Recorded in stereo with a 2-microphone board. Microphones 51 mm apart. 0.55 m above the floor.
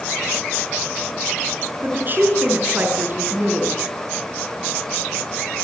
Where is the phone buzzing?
No phone buzzing in this recording.